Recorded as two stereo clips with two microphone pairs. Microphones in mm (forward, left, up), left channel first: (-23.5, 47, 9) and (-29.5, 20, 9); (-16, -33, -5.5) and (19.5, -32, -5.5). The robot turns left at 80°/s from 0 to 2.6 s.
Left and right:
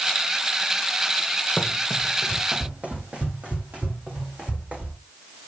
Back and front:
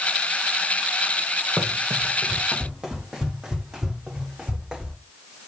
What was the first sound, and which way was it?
Running footsteps, 5° left.